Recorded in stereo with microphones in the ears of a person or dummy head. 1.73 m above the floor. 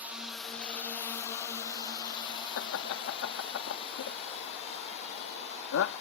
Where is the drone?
10° right (ahead or behind); by 6.0 s 40° left (ahead or behind).